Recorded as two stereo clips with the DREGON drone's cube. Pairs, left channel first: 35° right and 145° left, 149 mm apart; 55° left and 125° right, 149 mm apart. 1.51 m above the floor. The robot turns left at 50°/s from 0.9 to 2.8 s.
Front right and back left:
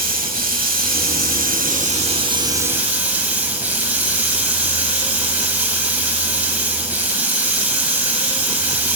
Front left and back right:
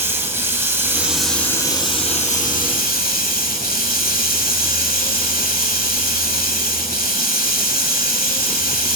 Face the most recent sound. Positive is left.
turn(degrees=65)